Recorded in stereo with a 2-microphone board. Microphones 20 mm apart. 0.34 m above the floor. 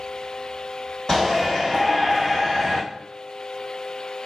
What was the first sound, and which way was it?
A shout, 40° left (ahead or behind).